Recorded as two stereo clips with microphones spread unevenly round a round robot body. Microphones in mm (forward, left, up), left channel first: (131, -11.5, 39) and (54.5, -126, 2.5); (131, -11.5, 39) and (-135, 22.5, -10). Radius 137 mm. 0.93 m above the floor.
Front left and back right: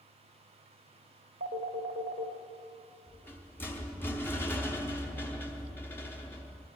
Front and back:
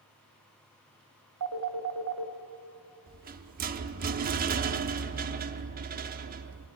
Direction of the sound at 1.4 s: 145° right.